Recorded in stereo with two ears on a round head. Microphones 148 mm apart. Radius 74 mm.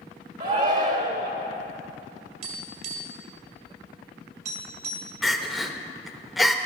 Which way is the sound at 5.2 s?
Centre (ahead or behind).